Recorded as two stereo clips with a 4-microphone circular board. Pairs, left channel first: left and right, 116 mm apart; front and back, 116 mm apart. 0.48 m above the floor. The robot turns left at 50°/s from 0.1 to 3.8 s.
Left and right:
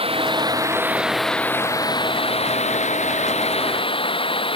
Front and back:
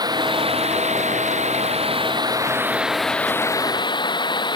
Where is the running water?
125° right; by 4.6 s 50° left.